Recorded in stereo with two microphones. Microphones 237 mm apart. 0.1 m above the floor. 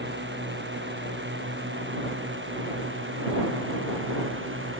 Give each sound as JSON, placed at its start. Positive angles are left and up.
{"t": 0.0, "sound": "a drone", "side_deg": -50}